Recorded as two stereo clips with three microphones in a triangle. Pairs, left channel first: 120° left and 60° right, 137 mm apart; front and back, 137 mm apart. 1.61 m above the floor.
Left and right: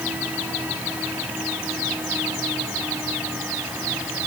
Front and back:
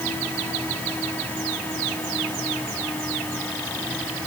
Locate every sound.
Only background noise.